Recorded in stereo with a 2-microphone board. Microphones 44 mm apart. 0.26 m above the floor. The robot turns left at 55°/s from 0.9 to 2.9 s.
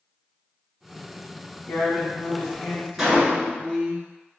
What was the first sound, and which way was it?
A woman speaking, straight behind.